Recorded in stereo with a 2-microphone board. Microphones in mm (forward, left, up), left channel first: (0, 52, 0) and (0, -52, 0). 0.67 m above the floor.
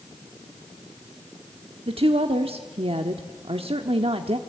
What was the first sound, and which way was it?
A woman speaking, 65° right (ahead or behind).